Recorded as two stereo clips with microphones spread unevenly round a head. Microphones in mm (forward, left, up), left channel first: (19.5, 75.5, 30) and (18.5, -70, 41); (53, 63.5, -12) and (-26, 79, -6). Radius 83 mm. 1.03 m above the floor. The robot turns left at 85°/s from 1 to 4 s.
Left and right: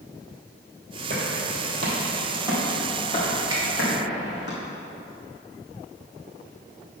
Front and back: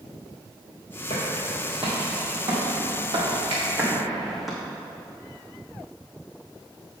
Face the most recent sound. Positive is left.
turn(degrees=155)